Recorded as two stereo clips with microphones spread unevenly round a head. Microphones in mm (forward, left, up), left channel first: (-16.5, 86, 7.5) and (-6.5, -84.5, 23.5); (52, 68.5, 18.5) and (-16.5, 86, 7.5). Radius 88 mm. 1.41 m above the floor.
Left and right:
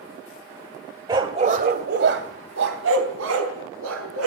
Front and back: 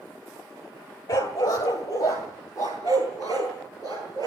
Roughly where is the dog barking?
Ahead right.